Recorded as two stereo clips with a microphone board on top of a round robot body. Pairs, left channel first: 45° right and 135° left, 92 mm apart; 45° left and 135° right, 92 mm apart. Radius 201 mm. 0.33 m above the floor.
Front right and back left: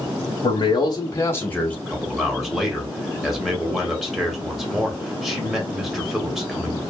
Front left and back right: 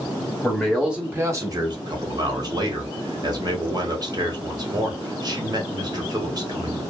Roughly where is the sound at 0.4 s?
Ahead right.